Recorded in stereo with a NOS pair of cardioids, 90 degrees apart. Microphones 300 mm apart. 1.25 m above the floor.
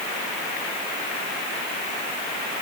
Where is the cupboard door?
I don't hear a cupboard door.